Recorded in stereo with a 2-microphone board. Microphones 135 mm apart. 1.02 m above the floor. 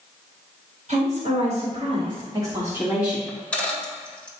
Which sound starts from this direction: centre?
A dropped coin, at 3.3 s.